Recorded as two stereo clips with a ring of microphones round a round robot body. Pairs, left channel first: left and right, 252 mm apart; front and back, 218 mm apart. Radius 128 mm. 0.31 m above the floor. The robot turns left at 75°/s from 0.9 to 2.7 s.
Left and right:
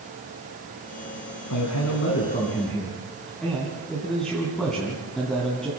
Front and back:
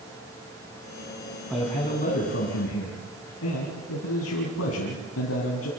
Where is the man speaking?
90° left, 3.5 m; by 5.7 s straight ahead, 3.5 m.